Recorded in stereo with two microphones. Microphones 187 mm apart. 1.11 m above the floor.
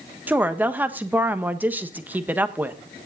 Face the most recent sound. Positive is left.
turn(degrees=-10)  # may be behind; listen again after turning